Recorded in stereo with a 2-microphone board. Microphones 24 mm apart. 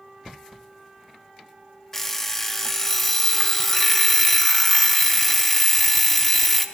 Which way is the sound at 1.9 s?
10° left (ahead or behind).